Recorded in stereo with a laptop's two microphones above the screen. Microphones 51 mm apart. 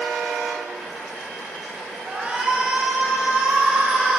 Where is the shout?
25° right (ahead or behind), 5 m; by 4.2 s 20° right (ahead or behind), 4 m.